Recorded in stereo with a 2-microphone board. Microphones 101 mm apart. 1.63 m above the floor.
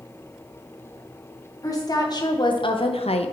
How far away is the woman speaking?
About 1.7 m.